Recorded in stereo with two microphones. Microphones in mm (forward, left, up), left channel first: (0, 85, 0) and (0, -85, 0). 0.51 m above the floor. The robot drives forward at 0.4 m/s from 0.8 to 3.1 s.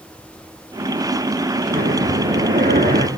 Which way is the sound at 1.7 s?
65° right (ahead or behind).